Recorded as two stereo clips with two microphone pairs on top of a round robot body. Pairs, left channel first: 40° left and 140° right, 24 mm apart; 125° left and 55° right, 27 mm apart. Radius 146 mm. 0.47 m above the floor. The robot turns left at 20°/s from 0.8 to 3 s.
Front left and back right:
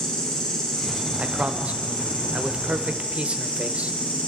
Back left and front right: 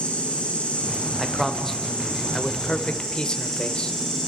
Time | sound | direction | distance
0.0 | an insect | 90° left | 7 m
1.2 | a man speaking | 140° right | 2.0 m